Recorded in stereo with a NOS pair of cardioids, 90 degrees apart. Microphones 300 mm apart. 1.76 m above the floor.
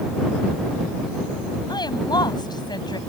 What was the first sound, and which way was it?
A woman speaking, 15° left.